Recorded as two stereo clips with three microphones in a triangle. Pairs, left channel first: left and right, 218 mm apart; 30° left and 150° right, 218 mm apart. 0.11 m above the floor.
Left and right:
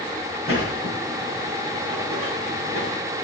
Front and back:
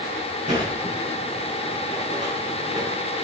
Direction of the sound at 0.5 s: 95° right.